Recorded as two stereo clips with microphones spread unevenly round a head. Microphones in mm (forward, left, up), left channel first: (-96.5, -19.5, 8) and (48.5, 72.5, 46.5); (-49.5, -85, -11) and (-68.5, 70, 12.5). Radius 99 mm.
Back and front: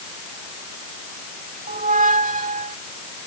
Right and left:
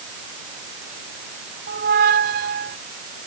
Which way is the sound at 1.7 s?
75° left.